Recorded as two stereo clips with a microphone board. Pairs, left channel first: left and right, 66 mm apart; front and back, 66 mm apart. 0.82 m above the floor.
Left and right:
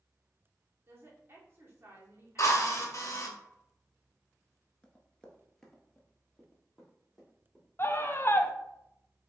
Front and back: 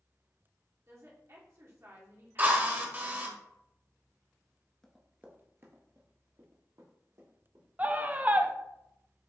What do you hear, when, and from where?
0.9 s a woman speaking: 135° right, 1.7 m
2.4 s a drill: 125° left, 1.0 m
4.8 s running footsteps: 70° left, 0.8 m; by 7.6 s straight behind, 3 m
7.8 s a scream: 125° left, 0.5 m